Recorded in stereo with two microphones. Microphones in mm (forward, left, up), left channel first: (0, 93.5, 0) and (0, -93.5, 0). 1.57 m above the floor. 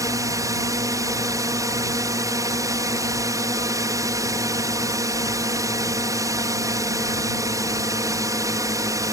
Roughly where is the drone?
Centre.